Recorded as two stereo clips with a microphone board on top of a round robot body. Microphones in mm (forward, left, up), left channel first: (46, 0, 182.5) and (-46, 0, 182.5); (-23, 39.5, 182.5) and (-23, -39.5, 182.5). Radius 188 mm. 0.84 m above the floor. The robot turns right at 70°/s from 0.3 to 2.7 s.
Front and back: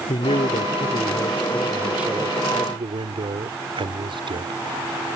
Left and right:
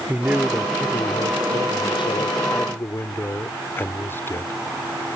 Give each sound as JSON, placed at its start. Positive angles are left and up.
{"t": 0.1, "sound": "a man speaking", "azimuth_deg": -15}